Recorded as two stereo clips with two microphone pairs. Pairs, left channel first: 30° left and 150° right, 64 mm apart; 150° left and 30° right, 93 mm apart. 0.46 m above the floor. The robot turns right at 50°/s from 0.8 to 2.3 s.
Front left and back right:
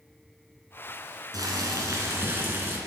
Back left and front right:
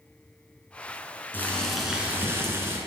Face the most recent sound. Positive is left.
turn(degrees=-95)